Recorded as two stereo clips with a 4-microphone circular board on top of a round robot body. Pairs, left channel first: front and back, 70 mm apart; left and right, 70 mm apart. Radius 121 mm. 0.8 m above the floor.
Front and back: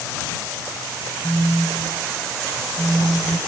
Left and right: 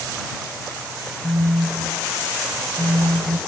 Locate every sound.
1.2 s a phone buzzing: 75° right